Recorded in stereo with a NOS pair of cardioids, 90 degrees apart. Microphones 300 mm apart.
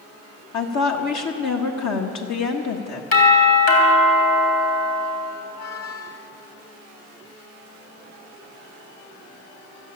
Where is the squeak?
55° left, 1.7 m.